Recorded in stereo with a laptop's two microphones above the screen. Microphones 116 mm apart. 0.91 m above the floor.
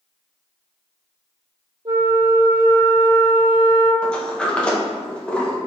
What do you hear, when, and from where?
1.9 s a flute: 45° right (ahead or behind), 0.9 m
4.0 s a sliding door: 10° left (ahead or behind), 0.8 m